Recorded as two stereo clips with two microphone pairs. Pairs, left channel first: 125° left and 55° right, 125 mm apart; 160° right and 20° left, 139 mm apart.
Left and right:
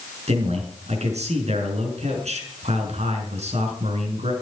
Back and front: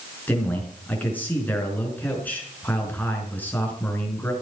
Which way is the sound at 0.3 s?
80° right.